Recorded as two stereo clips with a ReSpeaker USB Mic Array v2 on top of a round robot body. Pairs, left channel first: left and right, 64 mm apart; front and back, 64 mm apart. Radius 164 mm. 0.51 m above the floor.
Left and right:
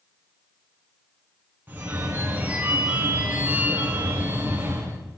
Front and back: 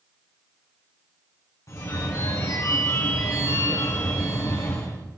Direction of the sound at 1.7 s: 35° right.